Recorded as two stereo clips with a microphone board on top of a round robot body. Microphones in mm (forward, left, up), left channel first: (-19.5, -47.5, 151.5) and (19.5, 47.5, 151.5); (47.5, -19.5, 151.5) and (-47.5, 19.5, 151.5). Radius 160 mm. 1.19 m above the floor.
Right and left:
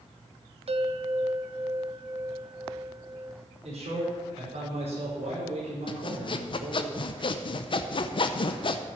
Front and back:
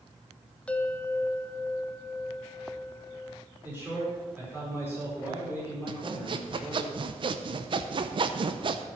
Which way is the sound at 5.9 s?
155° right.